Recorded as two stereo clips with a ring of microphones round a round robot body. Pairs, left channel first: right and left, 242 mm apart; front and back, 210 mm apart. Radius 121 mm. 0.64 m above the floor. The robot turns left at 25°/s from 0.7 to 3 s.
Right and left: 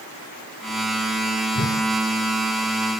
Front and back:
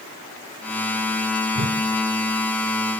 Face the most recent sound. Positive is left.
turn(degrees=-175)